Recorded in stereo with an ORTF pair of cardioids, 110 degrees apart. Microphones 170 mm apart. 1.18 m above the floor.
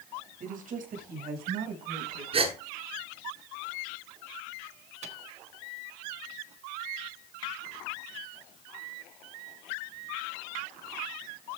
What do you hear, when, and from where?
0.4 s a woman speaking: 50° right, 6 m; by 2.2 s 70° right, 5.5 m
2.3 s a gasp: 35° right, 7.5 m
5.0 s a microwave: 45° right, 1.5 m